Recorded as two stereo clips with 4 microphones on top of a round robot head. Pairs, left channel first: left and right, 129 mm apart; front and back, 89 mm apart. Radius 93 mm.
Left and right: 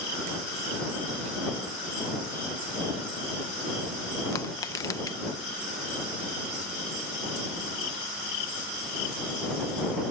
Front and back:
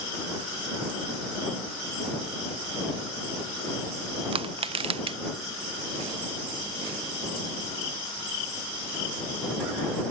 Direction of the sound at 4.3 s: 160° left.